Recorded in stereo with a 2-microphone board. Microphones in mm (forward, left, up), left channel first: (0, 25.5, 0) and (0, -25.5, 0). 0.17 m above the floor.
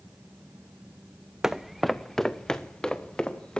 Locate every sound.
1.4 s footsteps: 10° right (ahead or behind), 0.9 m; by 3.6 s 20° left (ahead or behind), 3 m